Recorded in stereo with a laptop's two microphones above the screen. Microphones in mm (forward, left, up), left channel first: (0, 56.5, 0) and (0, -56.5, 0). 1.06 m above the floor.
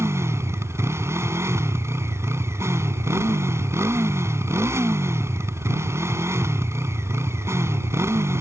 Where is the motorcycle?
25° right (ahead or behind).